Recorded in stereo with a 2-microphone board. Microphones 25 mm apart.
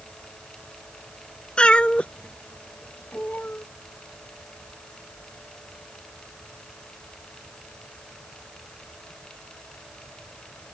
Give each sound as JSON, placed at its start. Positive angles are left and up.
{"t": 1.6, "sound": "a cat meowing", "side_deg": 40}